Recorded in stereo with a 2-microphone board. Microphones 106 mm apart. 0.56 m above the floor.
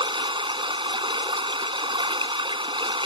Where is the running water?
45° right (ahead or behind).